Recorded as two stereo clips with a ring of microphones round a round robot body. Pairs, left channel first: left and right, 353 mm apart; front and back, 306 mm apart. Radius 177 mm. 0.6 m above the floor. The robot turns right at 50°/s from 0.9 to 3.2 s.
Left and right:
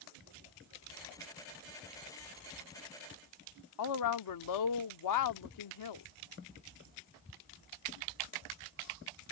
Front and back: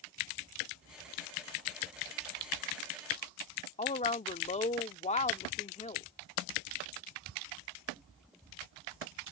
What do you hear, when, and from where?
3.8 s a woman speaking: 65° left